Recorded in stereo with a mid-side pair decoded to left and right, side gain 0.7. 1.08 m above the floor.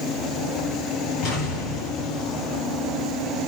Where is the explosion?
60° left, 9.5 m.